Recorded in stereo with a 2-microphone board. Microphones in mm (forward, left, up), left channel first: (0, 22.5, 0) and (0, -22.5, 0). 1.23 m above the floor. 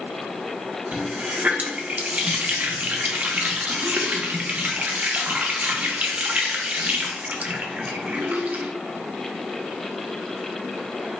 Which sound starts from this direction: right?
A running tap, at 0.9 s.